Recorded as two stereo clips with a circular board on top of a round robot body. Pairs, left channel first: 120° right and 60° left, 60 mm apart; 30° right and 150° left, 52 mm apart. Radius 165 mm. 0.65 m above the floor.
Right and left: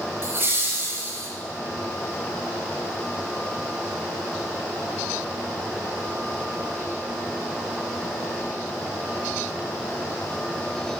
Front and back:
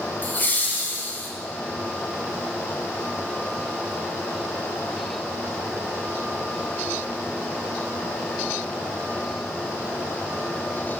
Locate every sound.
0.2 s laughter: 15° left, 1.5 m